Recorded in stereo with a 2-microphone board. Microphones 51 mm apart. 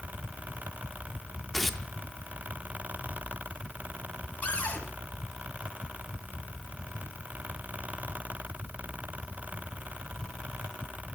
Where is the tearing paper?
5° left (ahead or behind), 0.6 m.